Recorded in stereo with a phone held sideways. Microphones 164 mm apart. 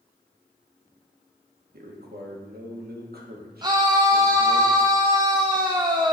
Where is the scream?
25° right (ahead or behind), 0.5 m.